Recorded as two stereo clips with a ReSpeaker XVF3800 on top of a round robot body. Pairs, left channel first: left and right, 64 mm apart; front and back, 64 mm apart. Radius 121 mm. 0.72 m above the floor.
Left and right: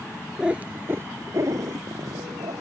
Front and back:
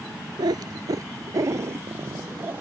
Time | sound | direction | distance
0.4 | a cat meowing | 170° right | ?